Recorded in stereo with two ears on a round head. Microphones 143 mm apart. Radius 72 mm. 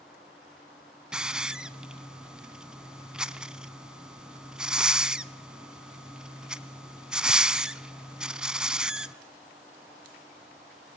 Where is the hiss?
5° right (ahead or behind), 0.6 m.